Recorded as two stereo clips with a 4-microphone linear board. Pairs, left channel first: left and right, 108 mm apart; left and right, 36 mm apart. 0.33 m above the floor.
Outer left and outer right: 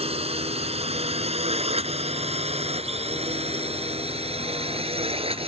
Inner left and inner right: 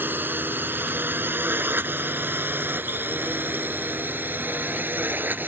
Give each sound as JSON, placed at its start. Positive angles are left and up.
{"t": 0.0, "sound": "a drone", "side_deg": -70}